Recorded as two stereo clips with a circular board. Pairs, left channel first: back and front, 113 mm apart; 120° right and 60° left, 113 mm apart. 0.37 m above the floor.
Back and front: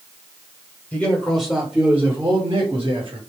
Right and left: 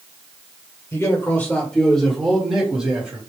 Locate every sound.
0.9 s a man speaking: 125° right, 1.3 m; by 3.2 s 10° right, 1.7 m